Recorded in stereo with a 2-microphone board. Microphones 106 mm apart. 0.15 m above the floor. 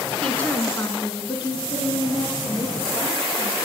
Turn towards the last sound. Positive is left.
turn(degrees=65)  # may be behind; listen again after turning